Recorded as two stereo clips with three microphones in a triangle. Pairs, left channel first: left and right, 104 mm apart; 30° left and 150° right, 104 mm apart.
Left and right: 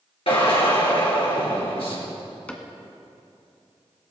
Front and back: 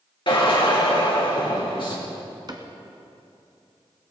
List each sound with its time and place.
0.3 s a drill: 65° left, 3.5 m
2.5 s a cupboard door: 165° left, 1.4 m